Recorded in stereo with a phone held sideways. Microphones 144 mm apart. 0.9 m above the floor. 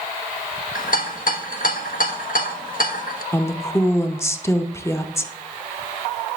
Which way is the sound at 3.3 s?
15° left (ahead or behind).